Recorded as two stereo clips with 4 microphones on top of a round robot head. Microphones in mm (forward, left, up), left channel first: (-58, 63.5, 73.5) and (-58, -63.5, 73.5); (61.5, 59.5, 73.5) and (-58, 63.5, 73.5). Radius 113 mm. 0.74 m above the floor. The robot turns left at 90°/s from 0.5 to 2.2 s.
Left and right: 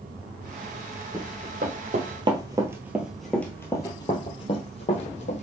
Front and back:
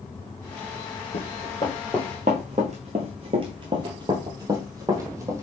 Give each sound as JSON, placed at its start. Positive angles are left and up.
{"t": 1.1, "sound": "running footsteps", "azimuth_deg": -15, "distance_m": 1.4}